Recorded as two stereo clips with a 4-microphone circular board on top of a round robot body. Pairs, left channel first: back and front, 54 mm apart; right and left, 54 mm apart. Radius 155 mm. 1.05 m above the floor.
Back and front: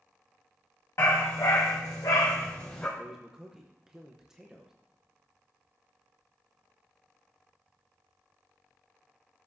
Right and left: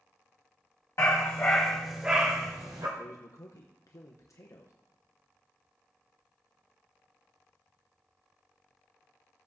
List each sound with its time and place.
1.0 s a dog barking: 135° right, 1.6 m; by 2.9 s 100° left, 1.4 m
3.0 s a man speaking: 80° right, 1.1 m